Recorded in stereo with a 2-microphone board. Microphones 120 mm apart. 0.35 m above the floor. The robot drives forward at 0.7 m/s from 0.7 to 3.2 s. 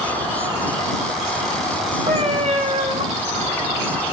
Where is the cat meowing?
55° right (ahead or behind), 0.8 m; by 3.0 s 60° right (ahead or behind), 0.8 m.